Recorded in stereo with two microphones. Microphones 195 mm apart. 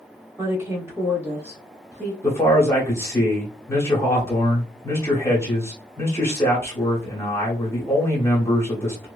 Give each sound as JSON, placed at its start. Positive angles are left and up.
{"t": 0.4, "sound": "a woman speaking", "side_deg": -15, "distance_m": 0.9}
{"t": 2.2, "sound": "a man speaking", "side_deg": 15, "distance_m": 0.9}